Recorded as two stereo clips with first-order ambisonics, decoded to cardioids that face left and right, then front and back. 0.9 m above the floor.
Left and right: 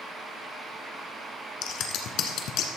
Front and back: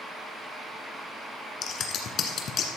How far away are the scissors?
About 1.5 m.